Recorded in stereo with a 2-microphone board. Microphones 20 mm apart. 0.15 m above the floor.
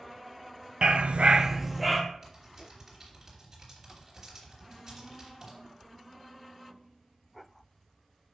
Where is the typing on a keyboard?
20° right (ahead or behind), 3 m.